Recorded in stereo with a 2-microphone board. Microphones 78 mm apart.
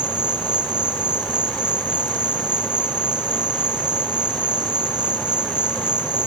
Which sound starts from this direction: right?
An insect, at 0.0 s.